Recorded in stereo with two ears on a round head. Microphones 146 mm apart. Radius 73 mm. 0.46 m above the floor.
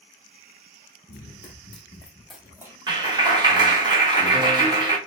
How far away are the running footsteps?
About 1.1 m.